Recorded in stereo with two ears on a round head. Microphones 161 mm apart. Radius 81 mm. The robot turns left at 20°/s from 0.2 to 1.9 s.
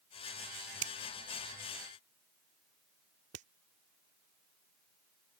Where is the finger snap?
85° right; by 3.5 s 75° right (ahead or behind).